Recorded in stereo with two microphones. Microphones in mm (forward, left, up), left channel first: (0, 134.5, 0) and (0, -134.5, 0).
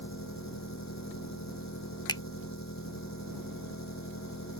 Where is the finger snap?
15° left (ahead or behind).